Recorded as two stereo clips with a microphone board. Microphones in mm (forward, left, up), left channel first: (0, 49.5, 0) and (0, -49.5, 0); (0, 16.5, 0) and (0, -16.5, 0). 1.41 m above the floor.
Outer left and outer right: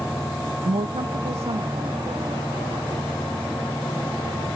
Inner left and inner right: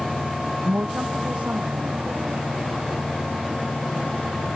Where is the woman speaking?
80° right; by 4.5 s 70° right (ahead or behind).